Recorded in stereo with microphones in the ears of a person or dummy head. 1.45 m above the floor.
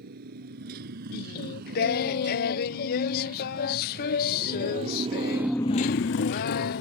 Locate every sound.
0.0 s a motorcycle: 60° right (ahead or behind); by 6.8 s 60° left (ahead or behind)
1.1 s singing: 55° left (ahead or behind)